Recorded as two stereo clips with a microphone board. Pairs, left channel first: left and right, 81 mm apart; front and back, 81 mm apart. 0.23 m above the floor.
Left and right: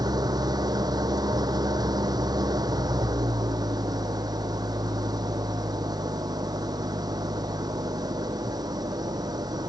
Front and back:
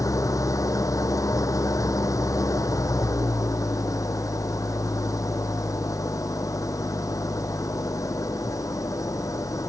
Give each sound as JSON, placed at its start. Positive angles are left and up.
{"t": 0.0, "sound": "an engine running", "azimuth_deg": -50}